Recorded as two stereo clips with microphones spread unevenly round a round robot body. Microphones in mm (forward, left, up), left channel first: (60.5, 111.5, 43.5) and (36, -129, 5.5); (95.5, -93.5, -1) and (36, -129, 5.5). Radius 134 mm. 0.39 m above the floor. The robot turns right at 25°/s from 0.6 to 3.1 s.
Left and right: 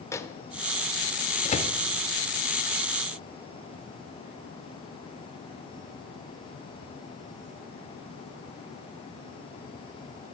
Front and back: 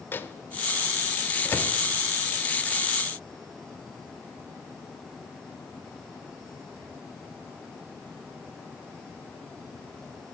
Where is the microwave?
Straight ahead, 0.8 m; by 1.8 s 30° left, 0.8 m.